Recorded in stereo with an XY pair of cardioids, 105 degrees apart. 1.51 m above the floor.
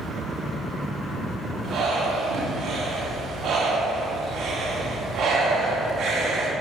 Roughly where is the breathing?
Ahead right.